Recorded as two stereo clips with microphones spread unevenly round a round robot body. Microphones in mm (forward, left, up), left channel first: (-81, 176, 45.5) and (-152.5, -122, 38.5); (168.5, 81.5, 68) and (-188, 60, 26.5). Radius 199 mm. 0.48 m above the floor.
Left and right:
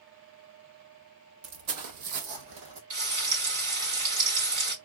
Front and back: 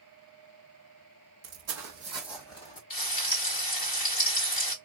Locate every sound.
1.4 s footsteps: 130° right, 1.1 m; by 2.8 s 60° right, 1.1 m
2.9 s frying: 65° right, 3 m